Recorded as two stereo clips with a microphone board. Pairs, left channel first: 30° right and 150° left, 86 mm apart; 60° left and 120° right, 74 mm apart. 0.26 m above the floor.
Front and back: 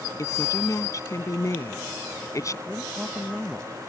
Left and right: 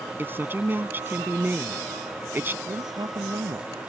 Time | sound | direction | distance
0.2 | a woman speaking | 65° right | ?
2.7 | a man speaking | 120° right | ?